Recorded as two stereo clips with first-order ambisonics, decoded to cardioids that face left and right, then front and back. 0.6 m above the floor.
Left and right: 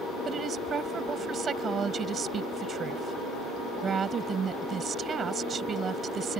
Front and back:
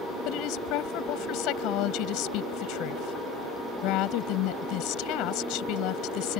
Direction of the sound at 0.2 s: 25° right.